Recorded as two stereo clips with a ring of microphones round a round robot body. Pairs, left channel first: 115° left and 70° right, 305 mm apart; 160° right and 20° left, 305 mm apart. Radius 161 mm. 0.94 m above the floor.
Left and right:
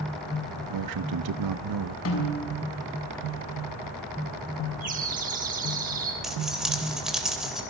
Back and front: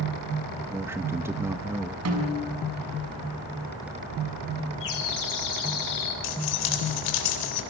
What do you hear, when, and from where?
0.7 s a man speaking: 60° right, 0.8 m
2.0 s a snare drum: 65° left, 6.5 m
4.8 s a bird: 130° right, 7 m
6.2 s keys jangling: 155° right, 3.5 m